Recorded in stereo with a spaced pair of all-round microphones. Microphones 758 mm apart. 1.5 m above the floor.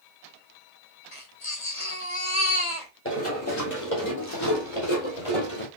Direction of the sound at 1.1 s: 40° left (ahead or behind).